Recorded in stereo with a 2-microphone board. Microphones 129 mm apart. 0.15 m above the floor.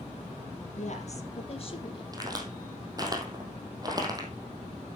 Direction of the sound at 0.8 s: 60° left (ahead or behind).